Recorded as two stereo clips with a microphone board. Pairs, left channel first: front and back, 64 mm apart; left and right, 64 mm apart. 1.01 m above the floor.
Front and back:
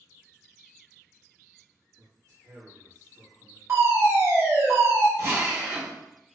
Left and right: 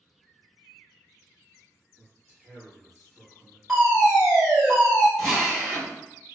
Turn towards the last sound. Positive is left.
turn(degrees=180)